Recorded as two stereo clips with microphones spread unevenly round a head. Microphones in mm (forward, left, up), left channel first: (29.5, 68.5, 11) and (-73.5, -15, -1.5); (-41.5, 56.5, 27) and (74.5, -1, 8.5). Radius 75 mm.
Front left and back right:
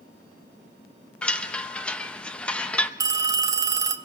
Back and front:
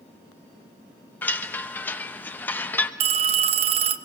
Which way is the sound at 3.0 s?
75° right.